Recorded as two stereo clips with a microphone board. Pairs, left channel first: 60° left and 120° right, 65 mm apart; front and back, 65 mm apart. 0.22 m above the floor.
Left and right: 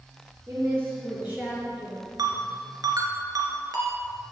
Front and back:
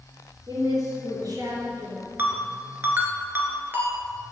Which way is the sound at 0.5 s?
170° right.